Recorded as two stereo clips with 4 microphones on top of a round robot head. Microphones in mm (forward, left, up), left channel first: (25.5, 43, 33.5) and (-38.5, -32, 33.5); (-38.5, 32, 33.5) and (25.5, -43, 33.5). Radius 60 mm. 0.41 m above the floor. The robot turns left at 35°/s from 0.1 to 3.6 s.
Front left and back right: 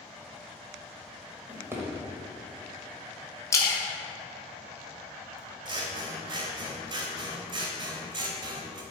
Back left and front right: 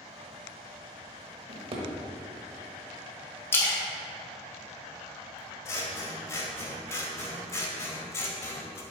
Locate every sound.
1.5 s a drawer: 60° right, 1.2 m; by 1.9 s 75° right, 1.2 m
3.5 s a splash: 80° left, 1.4 m; by 5.4 s 75° left, 1.4 m
5.7 s scissors: 165° right, 1.0 m